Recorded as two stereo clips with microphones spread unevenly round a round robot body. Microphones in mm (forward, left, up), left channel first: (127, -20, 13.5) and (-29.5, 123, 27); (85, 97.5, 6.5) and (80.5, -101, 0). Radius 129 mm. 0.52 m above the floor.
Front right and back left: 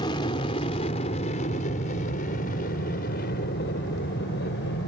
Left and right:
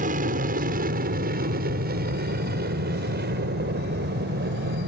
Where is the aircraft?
100° right; by 4.9 s 75° right.